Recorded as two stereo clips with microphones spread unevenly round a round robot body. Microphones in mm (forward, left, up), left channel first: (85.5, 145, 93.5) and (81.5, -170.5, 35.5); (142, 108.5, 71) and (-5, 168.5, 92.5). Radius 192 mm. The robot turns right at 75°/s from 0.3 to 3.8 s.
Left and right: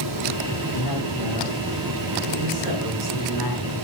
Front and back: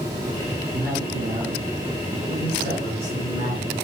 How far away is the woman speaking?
About 8 m.